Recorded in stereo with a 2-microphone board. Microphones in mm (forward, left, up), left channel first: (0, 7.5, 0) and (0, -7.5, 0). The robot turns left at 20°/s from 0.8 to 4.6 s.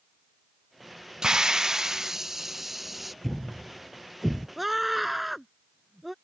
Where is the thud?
15° left (ahead or behind); by 4.5 s 10° right (ahead or behind).